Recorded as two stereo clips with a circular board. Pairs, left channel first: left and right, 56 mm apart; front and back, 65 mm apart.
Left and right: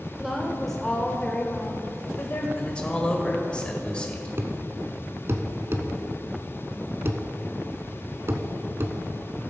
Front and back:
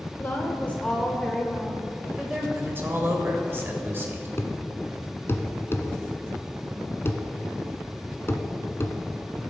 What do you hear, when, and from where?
0.2 s a woman speaking: 15° right, 1.2 m; by 2.5 s 105° left, 1.5 m
2.5 s a man speaking: 150° left, 1.8 m
4.4 s a thud: 50° right, 0.9 m